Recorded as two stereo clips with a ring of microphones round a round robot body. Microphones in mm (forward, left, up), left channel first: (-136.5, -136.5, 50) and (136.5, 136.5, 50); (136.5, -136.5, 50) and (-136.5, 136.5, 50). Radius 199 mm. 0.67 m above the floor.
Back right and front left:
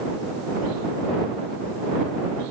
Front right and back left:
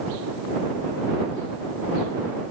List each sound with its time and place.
Only background noise.